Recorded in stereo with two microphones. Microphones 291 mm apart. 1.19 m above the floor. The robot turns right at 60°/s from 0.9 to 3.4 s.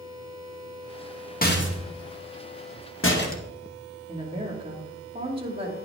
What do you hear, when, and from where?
1.4 s a rattle: 30° left (ahead or behind), 1.2 m
4.1 s a woman speaking: 20° right (ahead or behind), 2 m